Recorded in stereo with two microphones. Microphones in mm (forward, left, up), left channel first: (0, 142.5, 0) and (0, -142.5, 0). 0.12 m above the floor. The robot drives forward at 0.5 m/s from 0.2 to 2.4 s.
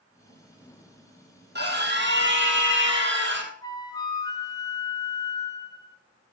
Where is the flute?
15° left (ahead or behind), 1.7 m.